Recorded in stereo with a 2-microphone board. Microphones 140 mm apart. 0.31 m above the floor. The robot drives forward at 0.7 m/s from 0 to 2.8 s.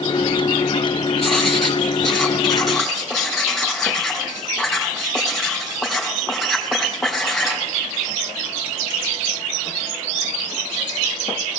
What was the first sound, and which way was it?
Writing, 5° left (ahead or behind).